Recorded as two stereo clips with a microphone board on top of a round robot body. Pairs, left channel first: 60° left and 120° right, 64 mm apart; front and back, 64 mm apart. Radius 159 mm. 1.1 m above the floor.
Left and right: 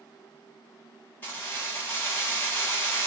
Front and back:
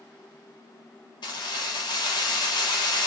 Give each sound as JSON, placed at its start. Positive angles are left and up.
{"t": 1.2, "sound": "keys jangling", "azimuth_deg": -10, "distance_m": 1.3}